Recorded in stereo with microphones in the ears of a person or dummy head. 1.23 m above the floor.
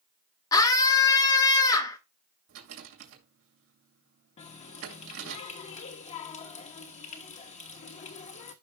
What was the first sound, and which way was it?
A scream, 20° left (ahead or behind).